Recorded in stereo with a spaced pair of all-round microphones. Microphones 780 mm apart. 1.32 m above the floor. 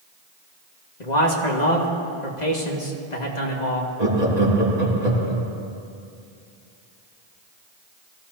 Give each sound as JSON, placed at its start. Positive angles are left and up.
{"t": 1.0, "sound": "a man speaking", "side_deg": 60, "distance_m": 2.0}
{"t": 4.0, "sound": "laughter", "side_deg": -55, "distance_m": 3.0}